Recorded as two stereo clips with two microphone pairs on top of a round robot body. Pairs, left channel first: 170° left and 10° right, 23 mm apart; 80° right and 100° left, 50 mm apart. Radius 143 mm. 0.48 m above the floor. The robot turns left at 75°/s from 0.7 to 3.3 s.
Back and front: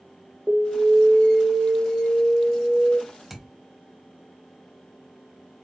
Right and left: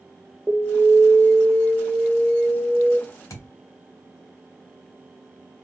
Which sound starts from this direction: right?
A thud, at 3.3 s.